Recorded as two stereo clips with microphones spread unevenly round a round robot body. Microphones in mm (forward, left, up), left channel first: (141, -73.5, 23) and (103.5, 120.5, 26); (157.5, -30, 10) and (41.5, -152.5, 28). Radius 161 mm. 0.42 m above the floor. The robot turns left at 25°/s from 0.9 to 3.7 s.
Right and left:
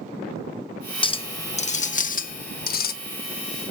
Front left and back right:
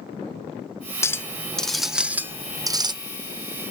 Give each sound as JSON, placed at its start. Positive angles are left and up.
{"t": 1.0, "sound": "a clink", "azimuth_deg": -20, "distance_m": 0.5}